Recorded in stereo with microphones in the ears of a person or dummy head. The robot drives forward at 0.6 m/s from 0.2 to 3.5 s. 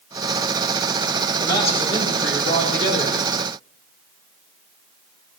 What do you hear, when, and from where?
1.4 s a man speaking: 40° left (ahead or behind), 4.5 m; by 3.4 s 50° left (ahead or behind), 3.5 m